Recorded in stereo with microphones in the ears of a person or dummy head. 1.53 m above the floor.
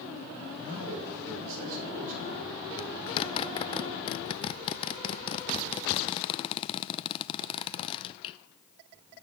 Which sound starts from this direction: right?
A man speaking, at 0.6 s.